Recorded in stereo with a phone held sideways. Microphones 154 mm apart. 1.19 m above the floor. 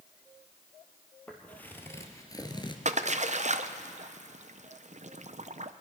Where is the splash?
50° right (ahead or behind), 0.5 m.